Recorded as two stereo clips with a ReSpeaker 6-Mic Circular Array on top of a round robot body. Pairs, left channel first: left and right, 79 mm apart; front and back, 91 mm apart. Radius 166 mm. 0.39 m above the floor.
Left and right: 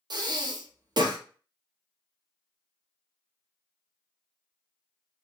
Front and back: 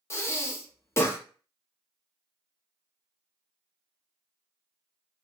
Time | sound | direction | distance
0.1 | breathing | 60° right | 0.6 m